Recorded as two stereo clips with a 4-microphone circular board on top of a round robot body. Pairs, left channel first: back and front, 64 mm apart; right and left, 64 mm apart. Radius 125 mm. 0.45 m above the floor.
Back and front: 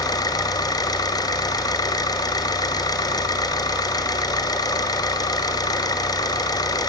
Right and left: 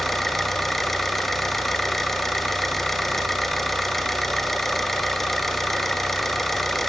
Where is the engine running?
Straight behind, 1.4 m.